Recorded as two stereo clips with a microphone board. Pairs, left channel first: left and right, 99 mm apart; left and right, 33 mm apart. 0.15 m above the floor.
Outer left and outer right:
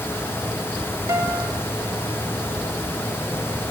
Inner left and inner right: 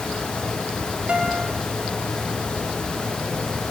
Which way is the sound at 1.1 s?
25° right (ahead or behind).